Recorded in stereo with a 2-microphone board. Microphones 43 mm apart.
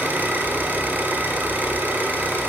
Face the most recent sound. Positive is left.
turn(degrees=-45)  # may be behind; listen again after turning